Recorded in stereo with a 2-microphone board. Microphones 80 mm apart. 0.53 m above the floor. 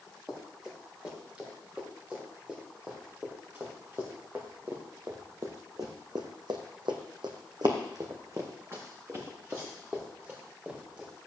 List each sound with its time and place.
0.3 s running footsteps: 10° right (ahead or behind), 6 m; by 11.1 s 20° right (ahead or behind), 4 m